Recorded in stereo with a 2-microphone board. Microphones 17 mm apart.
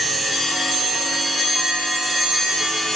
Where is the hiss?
I don't hear a hiss.